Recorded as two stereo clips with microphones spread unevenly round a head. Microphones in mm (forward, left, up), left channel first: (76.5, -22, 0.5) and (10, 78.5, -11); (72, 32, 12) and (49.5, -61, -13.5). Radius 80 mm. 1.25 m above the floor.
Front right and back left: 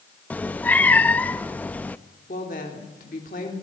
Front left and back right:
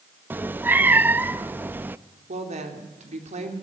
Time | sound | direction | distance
0.3 | a cat meowing | 25° right | 0.5 m
2.3 | a woman speaking | 105° right | 3.5 m